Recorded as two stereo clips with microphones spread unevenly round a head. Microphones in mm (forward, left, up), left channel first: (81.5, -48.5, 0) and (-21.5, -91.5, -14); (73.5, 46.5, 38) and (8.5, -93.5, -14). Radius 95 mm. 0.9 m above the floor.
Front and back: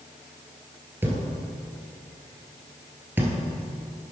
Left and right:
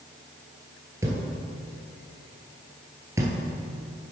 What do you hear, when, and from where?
1.0 s a thud: 145° left, 0.9 m